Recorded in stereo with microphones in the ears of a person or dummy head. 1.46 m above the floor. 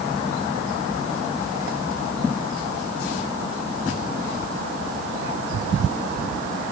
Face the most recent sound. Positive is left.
No sound to turn to.